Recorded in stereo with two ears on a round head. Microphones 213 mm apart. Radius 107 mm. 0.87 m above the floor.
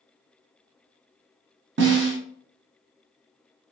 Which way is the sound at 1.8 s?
50° right (ahead or behind).